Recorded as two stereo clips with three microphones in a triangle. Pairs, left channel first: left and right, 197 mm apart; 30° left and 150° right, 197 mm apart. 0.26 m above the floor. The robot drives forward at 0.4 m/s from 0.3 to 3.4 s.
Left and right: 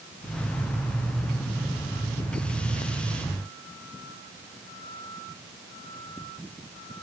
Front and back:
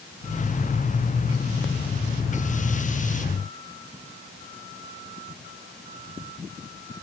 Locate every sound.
Only background noise.